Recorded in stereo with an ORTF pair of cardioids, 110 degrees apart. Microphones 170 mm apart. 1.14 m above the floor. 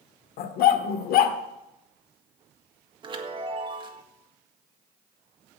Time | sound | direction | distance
0.4 | a dog barking | 70° left | 1.5 m
3.0 | a chime | 30° right | 1.7 m